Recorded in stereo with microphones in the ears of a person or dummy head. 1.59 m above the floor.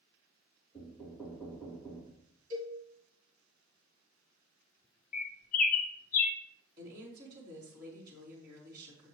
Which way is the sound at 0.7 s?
Centre (ahead or behind).